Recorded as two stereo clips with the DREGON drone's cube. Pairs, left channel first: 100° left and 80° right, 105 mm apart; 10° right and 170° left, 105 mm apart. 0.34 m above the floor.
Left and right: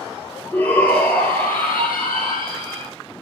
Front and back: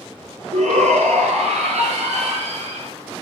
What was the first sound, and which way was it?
A shout, 175° left.